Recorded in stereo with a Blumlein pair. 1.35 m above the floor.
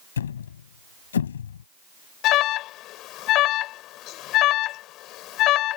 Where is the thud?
65° left.